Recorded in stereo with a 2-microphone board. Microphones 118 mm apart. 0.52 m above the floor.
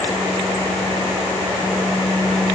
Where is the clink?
I don't hear a clink.